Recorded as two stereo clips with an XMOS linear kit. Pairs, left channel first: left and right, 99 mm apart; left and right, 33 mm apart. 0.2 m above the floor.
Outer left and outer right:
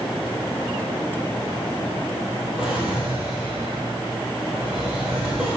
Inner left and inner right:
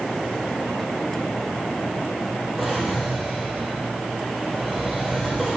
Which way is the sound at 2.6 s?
10° right (ahead or behind).